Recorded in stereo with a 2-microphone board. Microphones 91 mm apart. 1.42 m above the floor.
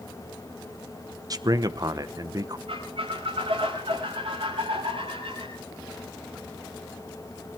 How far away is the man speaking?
About 1.0 m.